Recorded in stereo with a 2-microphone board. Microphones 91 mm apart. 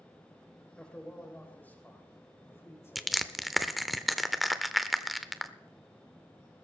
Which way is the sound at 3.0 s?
Centre (ahead or behind).